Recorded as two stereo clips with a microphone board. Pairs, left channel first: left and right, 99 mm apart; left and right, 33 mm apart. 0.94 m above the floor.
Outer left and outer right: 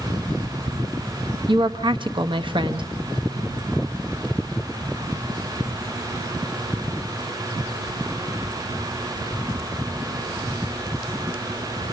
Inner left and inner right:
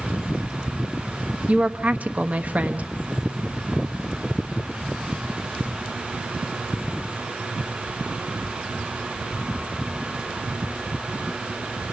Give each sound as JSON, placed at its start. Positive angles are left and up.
{"t": 1.5, "sound": "a woman speaking", "side_deg": -55, "distance_m": 1.1}